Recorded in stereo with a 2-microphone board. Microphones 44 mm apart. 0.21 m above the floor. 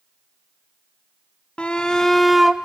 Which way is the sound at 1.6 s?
25° left (ahead or behind).